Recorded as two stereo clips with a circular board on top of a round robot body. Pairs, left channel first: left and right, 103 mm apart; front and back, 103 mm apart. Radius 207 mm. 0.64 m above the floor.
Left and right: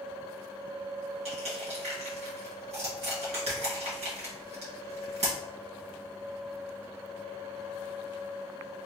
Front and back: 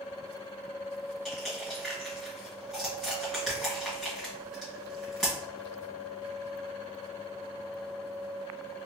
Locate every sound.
1.2 s crushing: 85° right, 2.0 m